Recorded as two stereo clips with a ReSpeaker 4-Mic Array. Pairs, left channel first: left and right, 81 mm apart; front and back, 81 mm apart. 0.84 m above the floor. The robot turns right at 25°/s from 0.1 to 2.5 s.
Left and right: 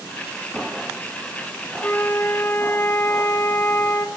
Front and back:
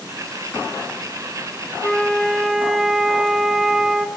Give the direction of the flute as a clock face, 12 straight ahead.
9 o'clock.